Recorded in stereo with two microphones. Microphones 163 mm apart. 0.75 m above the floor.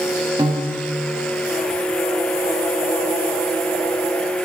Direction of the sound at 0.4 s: 30° right (ahead or behind).